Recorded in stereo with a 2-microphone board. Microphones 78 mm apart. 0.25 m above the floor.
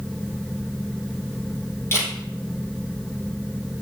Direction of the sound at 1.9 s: 35° left (ahead or behind).